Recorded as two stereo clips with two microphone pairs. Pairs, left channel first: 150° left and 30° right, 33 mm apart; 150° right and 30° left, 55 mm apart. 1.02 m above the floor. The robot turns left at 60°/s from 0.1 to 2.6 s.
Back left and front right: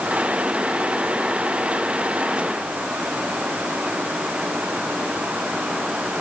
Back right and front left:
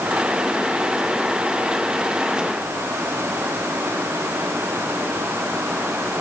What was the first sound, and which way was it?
Only background noise.